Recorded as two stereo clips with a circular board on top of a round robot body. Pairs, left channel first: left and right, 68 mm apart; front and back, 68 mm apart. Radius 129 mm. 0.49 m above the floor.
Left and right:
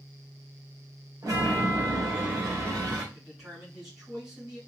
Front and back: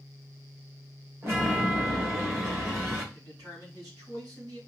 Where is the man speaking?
175° right, 3.5 m.